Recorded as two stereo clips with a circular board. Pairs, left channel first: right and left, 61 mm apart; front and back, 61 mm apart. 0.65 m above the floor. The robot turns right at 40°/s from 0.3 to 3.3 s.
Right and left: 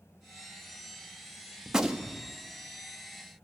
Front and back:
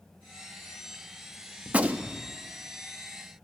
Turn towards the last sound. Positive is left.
turn(degrees=-145)